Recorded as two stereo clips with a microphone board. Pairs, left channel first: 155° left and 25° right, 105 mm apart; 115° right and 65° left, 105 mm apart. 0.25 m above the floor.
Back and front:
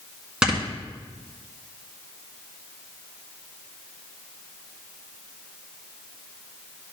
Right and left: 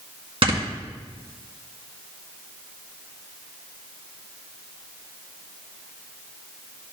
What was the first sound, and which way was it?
Snoring, 60° left.